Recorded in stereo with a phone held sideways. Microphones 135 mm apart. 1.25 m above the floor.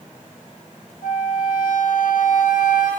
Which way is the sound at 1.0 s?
75° left (ahead or behind).